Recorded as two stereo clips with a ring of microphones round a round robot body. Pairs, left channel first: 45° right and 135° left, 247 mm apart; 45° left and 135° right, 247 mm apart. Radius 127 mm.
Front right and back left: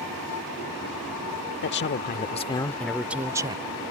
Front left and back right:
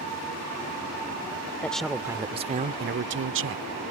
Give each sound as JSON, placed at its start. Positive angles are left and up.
{"t": 1.6, "sound": "a man speaking", "azimuth_deg": -35}